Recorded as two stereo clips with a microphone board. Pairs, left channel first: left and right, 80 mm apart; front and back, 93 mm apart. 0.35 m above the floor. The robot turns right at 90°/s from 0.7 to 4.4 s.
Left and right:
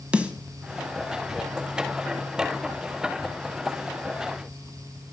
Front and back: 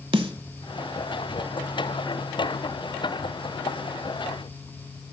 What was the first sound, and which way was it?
A snare drum, 165° right.